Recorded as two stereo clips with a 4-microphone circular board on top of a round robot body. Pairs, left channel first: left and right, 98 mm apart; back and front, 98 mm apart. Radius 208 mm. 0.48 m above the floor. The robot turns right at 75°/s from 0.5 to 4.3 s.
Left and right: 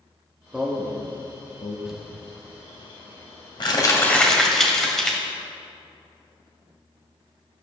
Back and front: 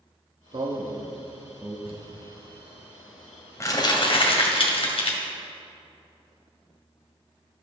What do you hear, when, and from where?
0.5 s a man speaking: 10° right, 1.2 m; by 1.8 s 80° left, 1.2 m
1.9 s crumpling: 10° right, 1.8 m; by 5.2 s 175° left, 1.8 m